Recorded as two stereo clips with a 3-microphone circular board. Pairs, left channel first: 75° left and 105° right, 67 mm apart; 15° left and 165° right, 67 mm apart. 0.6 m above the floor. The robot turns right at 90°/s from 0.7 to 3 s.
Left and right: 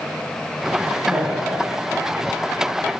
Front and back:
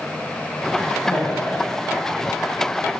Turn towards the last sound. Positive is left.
turn(degrees=140)